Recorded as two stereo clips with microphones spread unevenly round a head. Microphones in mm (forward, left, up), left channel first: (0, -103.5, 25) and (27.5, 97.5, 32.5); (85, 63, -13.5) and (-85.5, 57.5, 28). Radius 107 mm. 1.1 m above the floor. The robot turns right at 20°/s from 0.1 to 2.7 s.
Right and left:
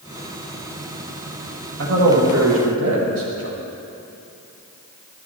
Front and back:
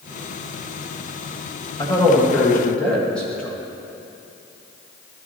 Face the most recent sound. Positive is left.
turn(degrees=80)